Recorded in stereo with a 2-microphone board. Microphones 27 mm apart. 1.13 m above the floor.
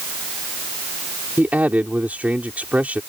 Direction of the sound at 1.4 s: 80° right.